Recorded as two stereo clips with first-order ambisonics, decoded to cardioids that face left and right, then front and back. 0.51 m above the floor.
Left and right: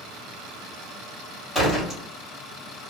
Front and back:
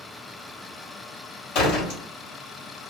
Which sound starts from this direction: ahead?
A door slam, at 1.6 s.